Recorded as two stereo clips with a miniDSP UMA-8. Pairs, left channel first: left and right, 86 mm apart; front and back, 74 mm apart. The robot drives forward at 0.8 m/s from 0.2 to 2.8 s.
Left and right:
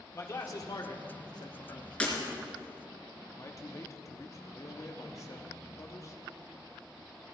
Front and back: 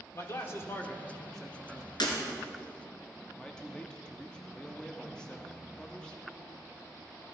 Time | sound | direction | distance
0.1 | a man speaking | 40° left | 1.5 m
2.0 | breaking glass | 15° left | 2.5 m
3.3 | a man speaking | 70° left | 1.0 m